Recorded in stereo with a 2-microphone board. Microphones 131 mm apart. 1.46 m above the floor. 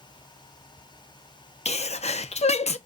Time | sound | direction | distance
1.6 | a sneeze | 50° left (ahead or behind) | 0.5 m